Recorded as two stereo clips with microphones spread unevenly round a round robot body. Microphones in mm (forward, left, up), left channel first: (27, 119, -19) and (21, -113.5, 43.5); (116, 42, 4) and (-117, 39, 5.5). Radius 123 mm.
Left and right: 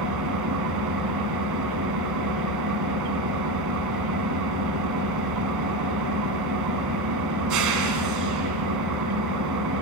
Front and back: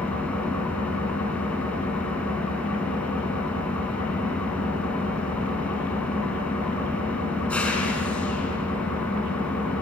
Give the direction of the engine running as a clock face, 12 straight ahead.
3 o'clock.